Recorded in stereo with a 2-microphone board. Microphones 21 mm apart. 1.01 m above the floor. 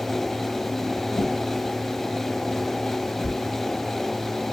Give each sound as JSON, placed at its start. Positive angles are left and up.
{"t": 1.1, "sound": "a whoosh", "side_deg": 45, "distance_m": 3.0}